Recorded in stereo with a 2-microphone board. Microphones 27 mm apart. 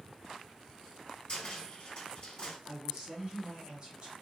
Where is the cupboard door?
45° left (ahead or behind), 1.7 m.